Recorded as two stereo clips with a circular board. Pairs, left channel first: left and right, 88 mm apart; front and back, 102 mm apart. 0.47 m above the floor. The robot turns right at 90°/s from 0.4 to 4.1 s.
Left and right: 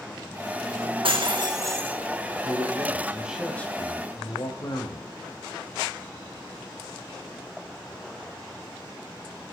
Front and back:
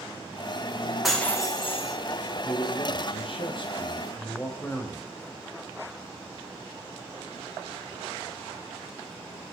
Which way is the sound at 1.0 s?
95° right.